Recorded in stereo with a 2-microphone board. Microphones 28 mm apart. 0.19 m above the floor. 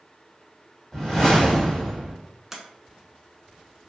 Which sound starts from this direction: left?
A whoosh, at 0.9 s.